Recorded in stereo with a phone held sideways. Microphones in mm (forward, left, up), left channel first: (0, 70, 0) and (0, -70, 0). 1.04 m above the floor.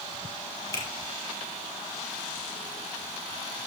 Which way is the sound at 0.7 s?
25° left (ahead or behind).